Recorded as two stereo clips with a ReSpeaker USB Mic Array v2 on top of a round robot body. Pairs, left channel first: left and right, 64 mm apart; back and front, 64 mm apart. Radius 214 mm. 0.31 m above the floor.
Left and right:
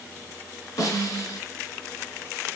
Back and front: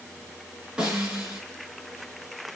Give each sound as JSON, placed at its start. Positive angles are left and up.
{"t": 0.8, "sound": "a snare drum", "azimuth_deg": 75, "distance_m": 6.0}